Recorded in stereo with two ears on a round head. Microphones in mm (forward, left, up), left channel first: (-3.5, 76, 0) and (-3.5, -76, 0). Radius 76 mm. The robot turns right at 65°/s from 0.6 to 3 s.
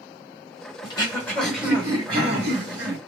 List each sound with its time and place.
0.8 s throat clearing: 135° left, 1.8 m; by 3.0 s 85° right, 1.8 m